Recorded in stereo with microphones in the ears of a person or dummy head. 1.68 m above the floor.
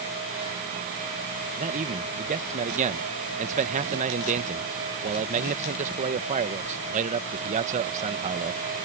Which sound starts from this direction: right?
A man speaking, at 1.6 s.